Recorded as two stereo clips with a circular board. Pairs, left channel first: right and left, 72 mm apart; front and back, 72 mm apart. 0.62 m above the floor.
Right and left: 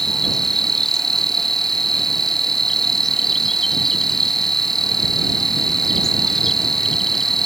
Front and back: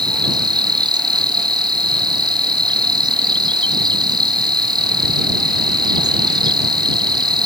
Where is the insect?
175° right.